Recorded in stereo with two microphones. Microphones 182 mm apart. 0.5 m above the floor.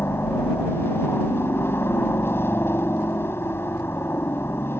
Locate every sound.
0.0 s a helicopter: 15° left (ahead or behind)